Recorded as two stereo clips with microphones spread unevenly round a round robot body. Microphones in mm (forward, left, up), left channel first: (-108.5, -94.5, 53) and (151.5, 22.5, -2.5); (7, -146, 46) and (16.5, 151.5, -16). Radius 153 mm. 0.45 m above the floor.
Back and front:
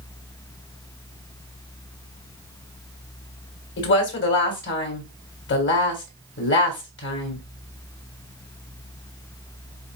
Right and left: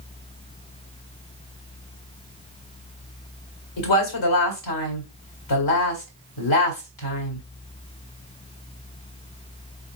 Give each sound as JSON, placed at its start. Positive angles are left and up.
{"t": 3.8, "sound": "a woman speaking", "azimuth_deg": -105, "distance_m": 2.0}